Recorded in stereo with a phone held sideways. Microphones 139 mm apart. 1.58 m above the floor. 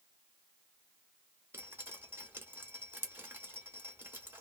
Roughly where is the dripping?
Centre.